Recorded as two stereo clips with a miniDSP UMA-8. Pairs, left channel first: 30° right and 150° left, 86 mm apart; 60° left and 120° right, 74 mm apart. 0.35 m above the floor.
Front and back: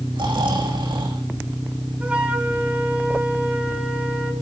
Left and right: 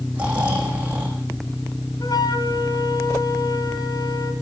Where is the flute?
75° left, 3.5 m.